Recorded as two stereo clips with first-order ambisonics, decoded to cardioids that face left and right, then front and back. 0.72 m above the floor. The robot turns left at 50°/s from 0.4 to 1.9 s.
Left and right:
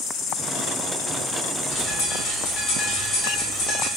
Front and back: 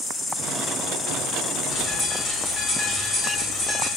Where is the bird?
85° left, 1.4 m; by 3.9 s 75° left, 1.4 m.